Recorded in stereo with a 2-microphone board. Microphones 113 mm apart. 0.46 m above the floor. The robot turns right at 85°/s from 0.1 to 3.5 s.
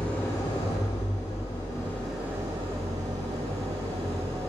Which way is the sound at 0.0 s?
10° left.